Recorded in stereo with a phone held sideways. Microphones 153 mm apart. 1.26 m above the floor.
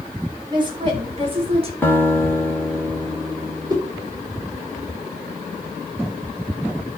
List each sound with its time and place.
0.5 s a woman speaking: 30° right (ahead or behind), 4 m; by 1.7 s 40° right (ahead or behind), 4 m
1.8 s a guitar: 15° left (ahead or behind), 2.5 m
3.7 s a whoosh: 25° right (ahead or behind), 4.5 m